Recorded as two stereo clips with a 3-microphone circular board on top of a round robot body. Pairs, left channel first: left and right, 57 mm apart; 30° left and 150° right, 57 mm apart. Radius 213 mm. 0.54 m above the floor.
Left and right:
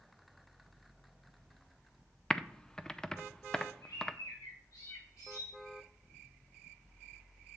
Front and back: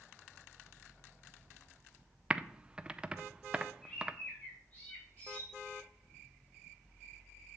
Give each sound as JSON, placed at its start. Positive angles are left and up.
{"t": 2.3, "sound": "typing on a keyboard", "azimuth_deg": 155, "distance_m": 0.8}
{"t": 3.8, "sound": "a bird", "azimuth_deg": 95, "distance_m": 3.5}